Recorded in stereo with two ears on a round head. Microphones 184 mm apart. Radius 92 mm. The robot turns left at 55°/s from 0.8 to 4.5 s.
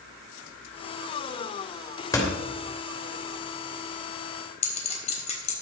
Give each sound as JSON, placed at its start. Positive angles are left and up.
{"t": 2.1, "sound": "a door slam", "side_deg": 15, "distance_m": 3.0}
{"t": 4.6, "sound": "a clink", "side_deg": 35, "distance_m": 3.5}